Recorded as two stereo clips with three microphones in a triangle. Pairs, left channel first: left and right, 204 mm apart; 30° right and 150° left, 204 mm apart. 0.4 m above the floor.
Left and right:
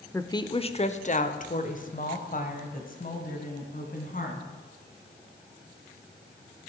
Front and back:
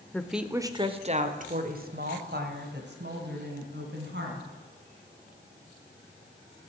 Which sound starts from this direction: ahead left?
A woman speaking, at 0.1 s.